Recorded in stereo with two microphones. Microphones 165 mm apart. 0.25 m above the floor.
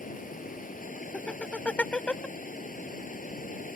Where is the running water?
55° left (ahead or behind).